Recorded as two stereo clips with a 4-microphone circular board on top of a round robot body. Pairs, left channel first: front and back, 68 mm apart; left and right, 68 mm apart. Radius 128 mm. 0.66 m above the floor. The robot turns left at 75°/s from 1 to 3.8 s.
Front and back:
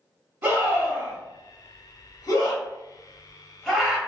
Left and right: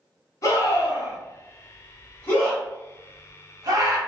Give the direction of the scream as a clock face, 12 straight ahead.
8 o'clock.